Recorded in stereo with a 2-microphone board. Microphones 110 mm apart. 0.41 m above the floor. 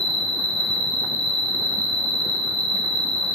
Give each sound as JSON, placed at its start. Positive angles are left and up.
{"t": 0.0, "sound": "an insect", "side_deg": -65, "distance_m": 0.9}